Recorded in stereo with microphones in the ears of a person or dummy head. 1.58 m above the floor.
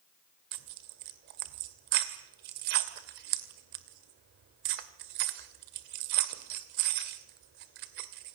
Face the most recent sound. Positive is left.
turn(degrees=-60)  # may be behind; listen again after turning